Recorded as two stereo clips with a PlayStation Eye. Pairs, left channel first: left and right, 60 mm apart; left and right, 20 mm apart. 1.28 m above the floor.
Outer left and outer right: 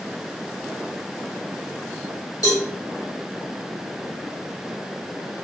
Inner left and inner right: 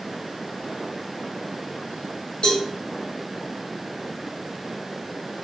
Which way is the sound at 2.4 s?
80° left.